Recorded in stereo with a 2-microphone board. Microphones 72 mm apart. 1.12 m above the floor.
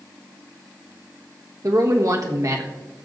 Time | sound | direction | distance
1.6 | a man speaking | 50° right (ahead or behind) | 1.3 m